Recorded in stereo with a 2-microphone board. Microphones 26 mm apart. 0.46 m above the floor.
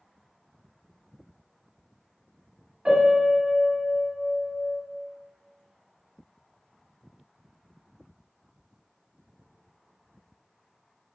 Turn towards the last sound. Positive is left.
turn(degrees=-40)  # may be behind; listen again after turning